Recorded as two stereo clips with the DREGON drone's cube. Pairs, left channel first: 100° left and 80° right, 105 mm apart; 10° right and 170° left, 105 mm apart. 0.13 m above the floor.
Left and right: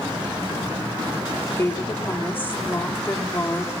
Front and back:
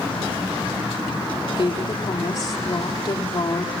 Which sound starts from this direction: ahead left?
A woman speaking, at 1.5 s.